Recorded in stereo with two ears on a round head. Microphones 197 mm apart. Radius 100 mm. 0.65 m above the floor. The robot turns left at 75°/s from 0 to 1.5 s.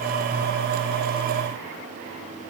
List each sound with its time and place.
Only background noise.